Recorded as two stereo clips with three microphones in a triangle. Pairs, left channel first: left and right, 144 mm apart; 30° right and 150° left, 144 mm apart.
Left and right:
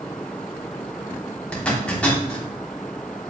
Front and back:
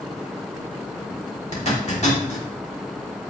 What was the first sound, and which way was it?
A zipper, 10° left.